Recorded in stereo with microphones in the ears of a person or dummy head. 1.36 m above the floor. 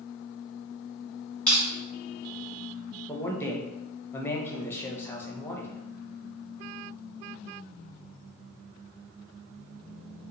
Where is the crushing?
5° left (ahead or behind), 1.2 m.